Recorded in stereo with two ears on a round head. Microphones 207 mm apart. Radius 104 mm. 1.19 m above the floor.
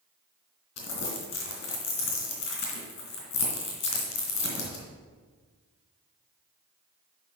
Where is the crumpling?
50° left (ahead or behind), 3 m.